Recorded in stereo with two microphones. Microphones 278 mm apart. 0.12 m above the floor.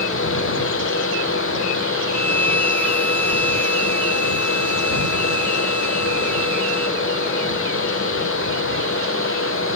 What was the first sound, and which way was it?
A violin, 35° left (ahead or behind).